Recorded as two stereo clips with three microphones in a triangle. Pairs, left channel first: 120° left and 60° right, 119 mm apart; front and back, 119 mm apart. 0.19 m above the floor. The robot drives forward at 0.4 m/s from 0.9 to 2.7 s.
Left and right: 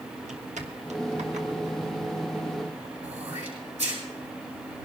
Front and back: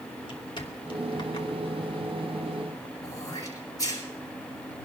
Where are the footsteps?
50° right, 2.5 m; by 2.9 s 55° right, 3.5 m.